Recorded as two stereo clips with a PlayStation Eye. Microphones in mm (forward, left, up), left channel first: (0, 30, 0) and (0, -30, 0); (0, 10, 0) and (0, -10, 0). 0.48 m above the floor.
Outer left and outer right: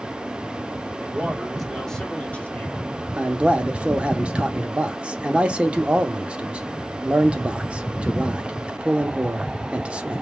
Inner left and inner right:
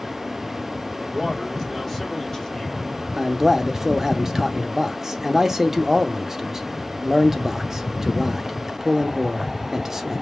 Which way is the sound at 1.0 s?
25° right (ahead or behind).